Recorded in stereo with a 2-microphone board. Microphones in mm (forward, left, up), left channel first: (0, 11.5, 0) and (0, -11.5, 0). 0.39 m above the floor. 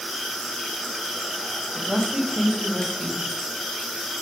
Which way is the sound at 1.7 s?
50° right (ahead or behind).